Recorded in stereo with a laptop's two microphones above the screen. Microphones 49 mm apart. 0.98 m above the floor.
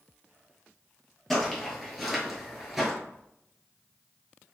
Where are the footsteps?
5° left (ahead or behind), 1.2 m; by 2.9 s 5° right (ahead or behind), 0.9 m.